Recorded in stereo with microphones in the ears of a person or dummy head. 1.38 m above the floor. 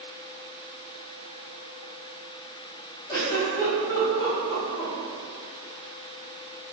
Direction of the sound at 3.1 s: 20° left (ahead or behind).